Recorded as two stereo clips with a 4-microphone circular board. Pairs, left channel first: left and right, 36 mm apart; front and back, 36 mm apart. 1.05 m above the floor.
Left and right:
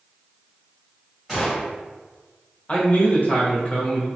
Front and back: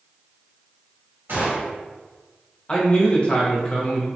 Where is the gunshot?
175° right, 1.8 m.